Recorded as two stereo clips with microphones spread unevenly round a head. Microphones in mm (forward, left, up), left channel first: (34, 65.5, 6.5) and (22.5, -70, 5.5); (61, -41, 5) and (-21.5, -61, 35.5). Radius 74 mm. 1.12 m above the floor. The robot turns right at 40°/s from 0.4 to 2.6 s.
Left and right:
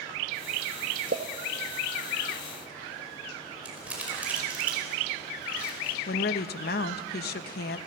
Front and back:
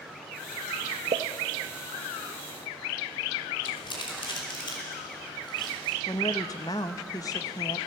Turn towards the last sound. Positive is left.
turn(degrees=75)